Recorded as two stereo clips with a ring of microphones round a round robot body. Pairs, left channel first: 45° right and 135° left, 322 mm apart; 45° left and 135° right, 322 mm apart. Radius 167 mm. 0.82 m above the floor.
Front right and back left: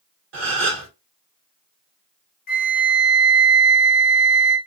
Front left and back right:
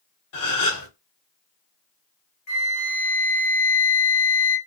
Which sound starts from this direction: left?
A gasp, at 0.3 s.